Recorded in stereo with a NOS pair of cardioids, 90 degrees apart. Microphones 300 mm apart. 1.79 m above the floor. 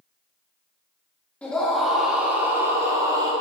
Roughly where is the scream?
Ahead.